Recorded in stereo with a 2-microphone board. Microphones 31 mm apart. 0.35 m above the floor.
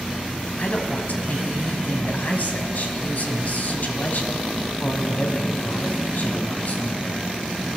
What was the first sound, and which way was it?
A man speaking, 60° left (ahead or behind).